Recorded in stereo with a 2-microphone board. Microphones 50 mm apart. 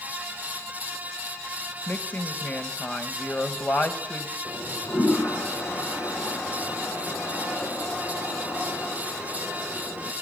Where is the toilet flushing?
70° left (ahead or behind), 5.5 m.